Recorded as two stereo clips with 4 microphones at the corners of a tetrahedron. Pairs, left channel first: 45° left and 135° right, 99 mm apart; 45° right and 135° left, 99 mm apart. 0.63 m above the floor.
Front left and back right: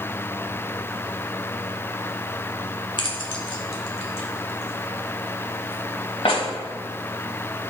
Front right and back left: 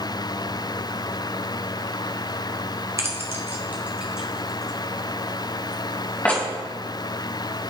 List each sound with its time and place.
3.0 s keys jangling: 75° left, 1.5 m; by 6.4 s 25° left, 2.5 m